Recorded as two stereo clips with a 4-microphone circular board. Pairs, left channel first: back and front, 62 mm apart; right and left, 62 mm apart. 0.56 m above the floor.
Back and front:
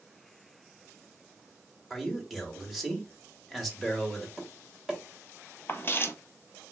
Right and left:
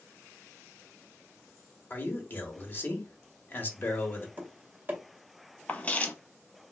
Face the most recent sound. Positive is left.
turn(degrees=-145)